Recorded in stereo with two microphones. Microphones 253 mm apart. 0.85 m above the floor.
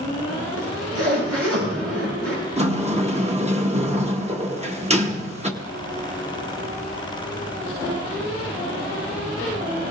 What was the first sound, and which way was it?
A zipper, 75° right (ahead or behind).